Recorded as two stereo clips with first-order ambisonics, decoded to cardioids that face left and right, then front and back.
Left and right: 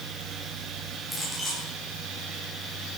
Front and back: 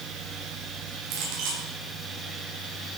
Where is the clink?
175° left, 8.5 m.